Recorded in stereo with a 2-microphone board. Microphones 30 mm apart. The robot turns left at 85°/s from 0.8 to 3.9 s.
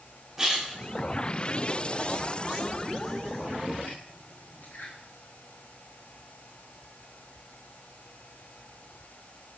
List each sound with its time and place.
0.4 s a splash: 10° right (ahead or behind), 10 m; by 4.9 s 85° left, 10 m